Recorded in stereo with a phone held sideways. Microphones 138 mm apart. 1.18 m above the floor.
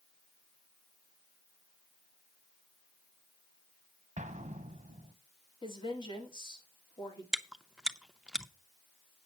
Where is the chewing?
5° right (ahead or behind), 0.6 m.